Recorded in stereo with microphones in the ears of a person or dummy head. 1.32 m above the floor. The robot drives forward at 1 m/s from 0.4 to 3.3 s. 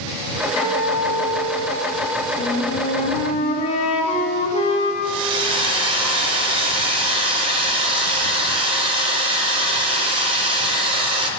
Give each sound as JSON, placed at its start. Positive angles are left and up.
{"t": 0.6, "sound": "a guitar", "side_deg": 30, "distance_m": 1.1}
{"t": 2.4, "sound": "a flute", "side_deg": 35, "distance_m": 0.7}
{"t": 5.0, "sound": "a hair dryer", "side_deg": -30, "distance_m": 0.7}